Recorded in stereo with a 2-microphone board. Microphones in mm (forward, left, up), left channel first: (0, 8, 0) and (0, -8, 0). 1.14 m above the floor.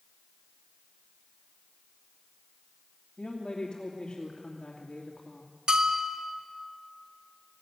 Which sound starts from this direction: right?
A bell, at 5.7 s.